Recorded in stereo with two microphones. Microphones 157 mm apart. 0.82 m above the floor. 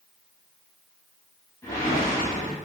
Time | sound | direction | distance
1.6 | a whoosh | 20° left (ahead or behind) | 1.0 m